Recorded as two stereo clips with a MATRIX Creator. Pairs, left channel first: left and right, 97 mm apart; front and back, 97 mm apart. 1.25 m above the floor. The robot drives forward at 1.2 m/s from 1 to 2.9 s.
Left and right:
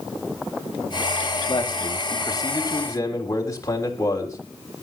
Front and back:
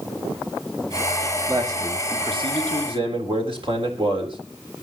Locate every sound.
1.5 s a man speaking: 125° left, 2.5 m; by 4.4 s 150° left, 3.5 m